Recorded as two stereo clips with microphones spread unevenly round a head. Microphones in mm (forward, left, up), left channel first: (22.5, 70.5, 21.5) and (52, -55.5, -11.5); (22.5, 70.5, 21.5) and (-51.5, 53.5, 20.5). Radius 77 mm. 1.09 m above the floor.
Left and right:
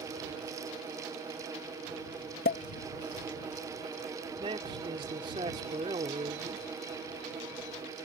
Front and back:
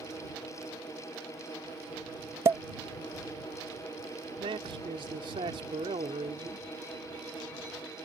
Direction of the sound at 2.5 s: 140° left.